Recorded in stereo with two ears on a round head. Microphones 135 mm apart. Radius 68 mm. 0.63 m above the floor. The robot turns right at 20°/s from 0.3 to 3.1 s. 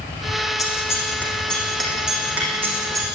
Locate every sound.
0.6 s scissors: 25° left (ahead or behind), 9 m; by 3.0 s 25° right (ahead or behind), 9 m